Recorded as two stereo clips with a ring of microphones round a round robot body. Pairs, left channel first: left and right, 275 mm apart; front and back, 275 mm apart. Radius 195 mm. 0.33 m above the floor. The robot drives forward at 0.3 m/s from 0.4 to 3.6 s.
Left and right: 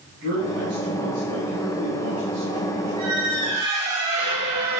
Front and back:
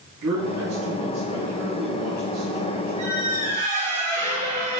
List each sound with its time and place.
0.2 s a man speaking: 145° right, 2.5 m; by 3.0 s 150° right, 3 m
3.0 s a squeak: 105° right, 3 m; by 4.8 s 110° right, 3.5 m